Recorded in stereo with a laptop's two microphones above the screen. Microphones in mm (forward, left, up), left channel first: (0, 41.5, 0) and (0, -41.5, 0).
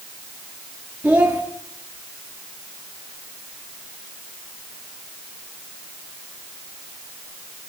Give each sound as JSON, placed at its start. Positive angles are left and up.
{"t": 1.0, "sound": "a child speaking", "side_deg": -20, "distance_m": 0.9}